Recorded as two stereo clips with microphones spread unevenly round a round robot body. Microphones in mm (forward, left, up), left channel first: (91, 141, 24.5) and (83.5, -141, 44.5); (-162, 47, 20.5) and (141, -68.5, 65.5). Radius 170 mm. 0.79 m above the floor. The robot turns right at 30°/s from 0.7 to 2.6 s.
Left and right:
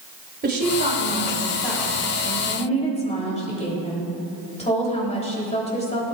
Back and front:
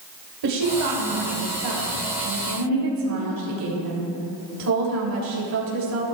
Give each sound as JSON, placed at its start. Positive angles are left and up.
{"t": 0.4, "sound": "a woman speaking", "azimuth_deg": -35, "distance_m": 3.5}